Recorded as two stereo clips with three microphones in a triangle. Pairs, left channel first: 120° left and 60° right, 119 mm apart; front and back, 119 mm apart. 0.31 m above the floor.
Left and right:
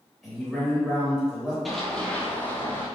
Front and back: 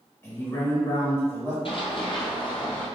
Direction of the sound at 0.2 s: 30° left.